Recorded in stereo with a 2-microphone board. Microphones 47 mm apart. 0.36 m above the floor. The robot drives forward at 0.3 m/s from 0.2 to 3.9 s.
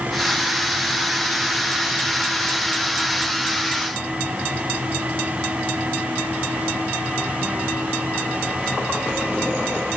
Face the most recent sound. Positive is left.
No sound to turn to.